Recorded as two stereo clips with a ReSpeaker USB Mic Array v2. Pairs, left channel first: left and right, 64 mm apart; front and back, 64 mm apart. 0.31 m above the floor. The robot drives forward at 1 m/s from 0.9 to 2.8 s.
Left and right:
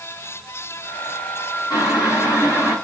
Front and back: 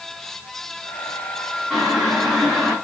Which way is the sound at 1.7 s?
90° left.